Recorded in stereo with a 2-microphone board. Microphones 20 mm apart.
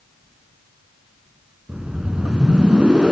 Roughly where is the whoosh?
Right.